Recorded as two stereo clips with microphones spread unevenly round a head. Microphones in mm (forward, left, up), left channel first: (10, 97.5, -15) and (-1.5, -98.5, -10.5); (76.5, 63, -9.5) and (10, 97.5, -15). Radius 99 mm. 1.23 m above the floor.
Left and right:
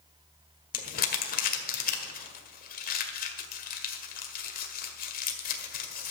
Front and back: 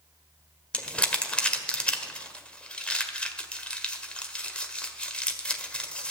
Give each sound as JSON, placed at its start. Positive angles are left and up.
{"t": 0.7, "sound": "crumpling", "azimuth_deg": 45, "distance_m": 1.6}